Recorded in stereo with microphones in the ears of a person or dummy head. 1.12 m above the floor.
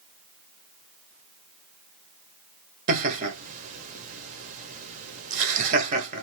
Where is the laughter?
40° right (ahead or behind), 1.1 m.